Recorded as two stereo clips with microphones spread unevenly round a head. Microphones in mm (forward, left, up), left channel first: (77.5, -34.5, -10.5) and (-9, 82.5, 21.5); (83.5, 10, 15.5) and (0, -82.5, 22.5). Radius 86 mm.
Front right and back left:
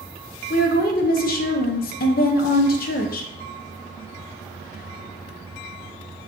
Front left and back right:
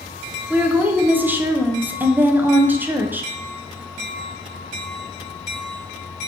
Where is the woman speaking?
65° right, 0.6 m.